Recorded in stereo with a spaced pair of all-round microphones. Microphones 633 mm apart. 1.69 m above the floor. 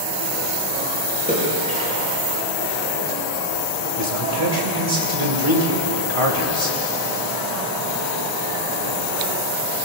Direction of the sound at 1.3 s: 10° right (ahead or behind).